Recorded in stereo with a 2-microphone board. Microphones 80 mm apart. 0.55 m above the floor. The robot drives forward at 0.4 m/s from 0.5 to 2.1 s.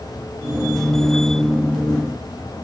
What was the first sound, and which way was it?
Only background noise.